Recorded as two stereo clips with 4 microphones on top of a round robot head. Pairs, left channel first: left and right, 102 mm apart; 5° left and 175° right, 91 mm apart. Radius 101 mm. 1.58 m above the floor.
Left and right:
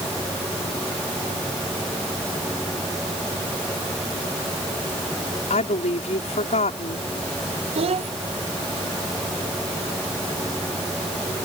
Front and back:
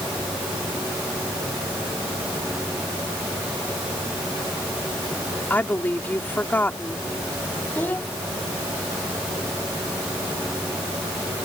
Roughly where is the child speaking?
Right.